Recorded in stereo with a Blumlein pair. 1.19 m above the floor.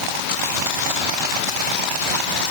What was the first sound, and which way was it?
Only background noise.